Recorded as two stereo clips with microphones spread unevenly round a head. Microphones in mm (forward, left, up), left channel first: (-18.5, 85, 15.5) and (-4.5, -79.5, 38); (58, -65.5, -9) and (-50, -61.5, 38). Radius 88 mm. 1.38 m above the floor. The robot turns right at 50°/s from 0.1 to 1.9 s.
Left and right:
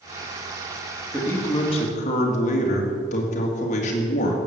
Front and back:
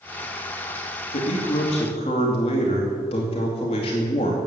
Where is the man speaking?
10° left, 2 m; by 4.4 s 45° left, 2 m.